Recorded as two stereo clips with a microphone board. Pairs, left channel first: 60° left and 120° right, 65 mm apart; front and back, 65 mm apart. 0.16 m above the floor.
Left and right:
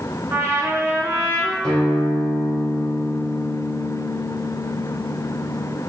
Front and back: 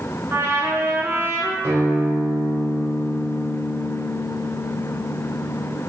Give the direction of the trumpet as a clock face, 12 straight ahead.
5 o'clock.